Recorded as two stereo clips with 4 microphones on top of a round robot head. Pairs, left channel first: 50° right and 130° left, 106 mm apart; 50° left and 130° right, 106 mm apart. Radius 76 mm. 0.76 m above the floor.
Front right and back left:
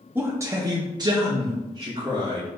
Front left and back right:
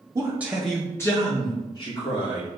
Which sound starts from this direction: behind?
A man speaking, at 0.1 s.